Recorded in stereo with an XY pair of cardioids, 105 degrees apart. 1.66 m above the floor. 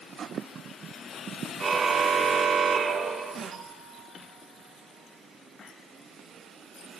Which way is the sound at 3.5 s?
50° right.